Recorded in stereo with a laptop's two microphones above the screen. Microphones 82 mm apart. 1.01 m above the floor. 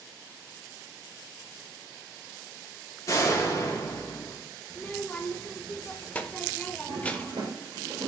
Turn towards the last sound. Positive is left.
turn(degrees=-70)  # may be behind; listen again after turning